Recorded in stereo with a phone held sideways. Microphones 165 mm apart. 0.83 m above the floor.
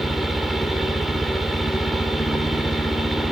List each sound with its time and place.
0.0 s a fan: centre (ahead or behind), 1.9 m